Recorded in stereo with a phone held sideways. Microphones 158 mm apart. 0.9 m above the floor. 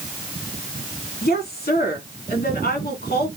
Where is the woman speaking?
70° left (ahead or behind), 2 m.